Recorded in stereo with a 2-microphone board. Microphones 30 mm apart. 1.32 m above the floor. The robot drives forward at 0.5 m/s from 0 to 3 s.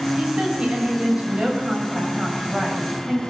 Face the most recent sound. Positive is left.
turn(degrees=-25)  # may be behind; listen again after turning